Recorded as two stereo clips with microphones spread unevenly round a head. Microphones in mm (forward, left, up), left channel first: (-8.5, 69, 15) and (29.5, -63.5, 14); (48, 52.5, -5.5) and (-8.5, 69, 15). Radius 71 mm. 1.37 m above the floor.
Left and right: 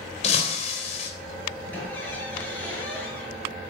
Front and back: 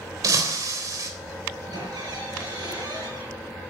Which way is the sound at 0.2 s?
155° left.